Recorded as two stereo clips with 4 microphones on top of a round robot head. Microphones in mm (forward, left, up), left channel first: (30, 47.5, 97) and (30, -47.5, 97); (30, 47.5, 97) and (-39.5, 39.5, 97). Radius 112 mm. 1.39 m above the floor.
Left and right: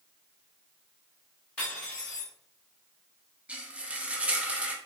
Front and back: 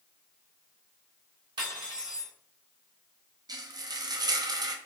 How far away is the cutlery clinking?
About 1.3 m.